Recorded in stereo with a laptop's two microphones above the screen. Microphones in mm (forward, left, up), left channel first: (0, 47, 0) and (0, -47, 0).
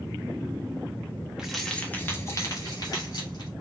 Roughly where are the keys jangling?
Centre.